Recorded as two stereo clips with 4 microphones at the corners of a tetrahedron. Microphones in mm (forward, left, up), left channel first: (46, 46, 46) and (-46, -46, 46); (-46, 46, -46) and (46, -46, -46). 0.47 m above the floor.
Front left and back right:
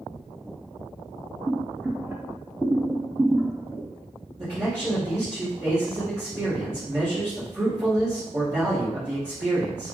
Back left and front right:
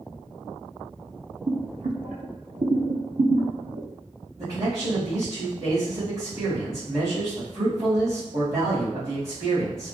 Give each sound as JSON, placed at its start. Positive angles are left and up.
{"t": 1.5, "sound": "boiling", "azimuth_deg": -60, "distance_m": 0.6}
{"t": 4.4, "sound": "a man speaking", "azimuth_deg": -90, "distance_m": 1.5}